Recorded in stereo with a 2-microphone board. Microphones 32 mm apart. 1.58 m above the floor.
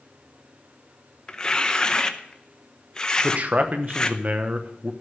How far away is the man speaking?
About 1.1 m.